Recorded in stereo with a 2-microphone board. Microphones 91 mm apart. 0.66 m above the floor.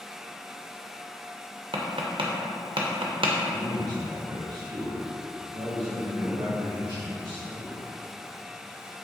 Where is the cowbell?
I don't hear a cowbell.